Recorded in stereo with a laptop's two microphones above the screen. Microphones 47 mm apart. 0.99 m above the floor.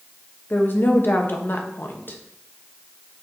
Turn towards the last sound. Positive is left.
turn(degrees=45)  # may be behind; listen again after turning